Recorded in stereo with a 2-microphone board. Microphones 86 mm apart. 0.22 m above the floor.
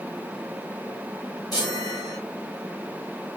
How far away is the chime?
About 3.5 m.